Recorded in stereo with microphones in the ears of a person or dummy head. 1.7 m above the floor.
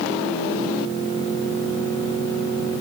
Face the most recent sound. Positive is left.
No sound to turn to.